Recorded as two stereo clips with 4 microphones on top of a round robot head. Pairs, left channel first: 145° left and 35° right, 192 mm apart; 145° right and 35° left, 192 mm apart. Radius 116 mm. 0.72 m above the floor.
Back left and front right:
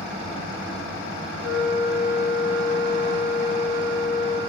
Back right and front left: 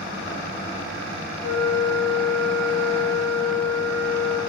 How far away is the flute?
About 2 m.